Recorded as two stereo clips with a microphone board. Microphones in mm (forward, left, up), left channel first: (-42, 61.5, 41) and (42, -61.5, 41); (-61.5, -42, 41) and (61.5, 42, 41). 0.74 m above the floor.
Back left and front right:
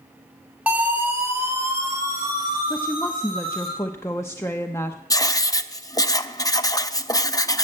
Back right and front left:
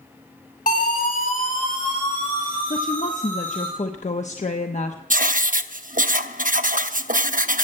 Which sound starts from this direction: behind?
A woman speaking, at 2.7 s.